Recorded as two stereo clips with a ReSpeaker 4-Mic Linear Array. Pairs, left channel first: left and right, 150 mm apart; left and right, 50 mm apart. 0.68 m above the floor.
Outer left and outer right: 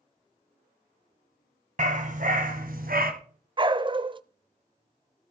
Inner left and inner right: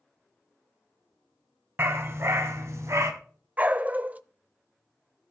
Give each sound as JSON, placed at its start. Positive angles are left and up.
{"t": 1.8, "sound": "a dog barking", "side_deg": -55, "distance_m": 1.7}
{"t": 3.6, "sound": "a dog barking", "side_deg": -35, "distance_m": 0.5}